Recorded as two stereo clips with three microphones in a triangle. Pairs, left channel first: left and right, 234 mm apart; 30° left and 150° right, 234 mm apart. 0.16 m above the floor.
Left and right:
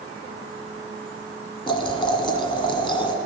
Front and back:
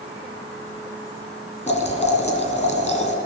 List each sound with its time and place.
1.7 s boiling: 45° left, 1.4 m